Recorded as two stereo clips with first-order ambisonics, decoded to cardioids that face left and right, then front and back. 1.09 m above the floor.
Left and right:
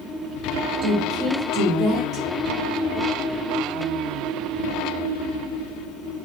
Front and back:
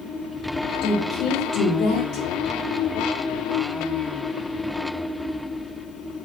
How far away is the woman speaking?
About 3.5 m.